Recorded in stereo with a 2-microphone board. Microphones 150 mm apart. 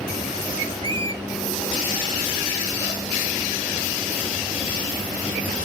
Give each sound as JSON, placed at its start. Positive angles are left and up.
{"t": 0.8, "sound": "a squeak", "side_deg": -35, "distance_m": 1.0}